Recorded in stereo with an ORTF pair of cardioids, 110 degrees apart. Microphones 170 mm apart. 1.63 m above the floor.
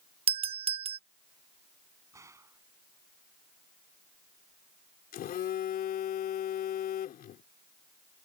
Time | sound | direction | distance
0.3 | a doorbell | 35° right | ?
2.1 | a gunshot | 15° right | ?
5.1 | a phone buzzing | 60° left | ?